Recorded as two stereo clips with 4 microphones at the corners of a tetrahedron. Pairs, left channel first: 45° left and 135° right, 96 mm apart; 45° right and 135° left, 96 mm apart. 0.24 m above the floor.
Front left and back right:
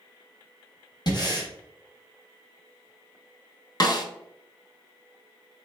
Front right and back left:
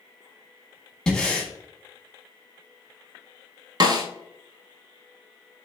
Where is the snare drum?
90° left, 0.5 m.